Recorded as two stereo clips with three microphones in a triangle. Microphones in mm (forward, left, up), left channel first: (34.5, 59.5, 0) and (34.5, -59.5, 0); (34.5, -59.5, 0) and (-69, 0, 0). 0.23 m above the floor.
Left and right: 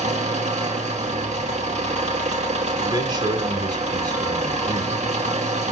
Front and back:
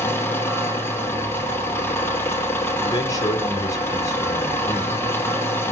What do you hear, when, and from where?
0.0 s an engine running: 100° right, 2.5 m
2.8 s a man speaking: 70° right, 1.9 m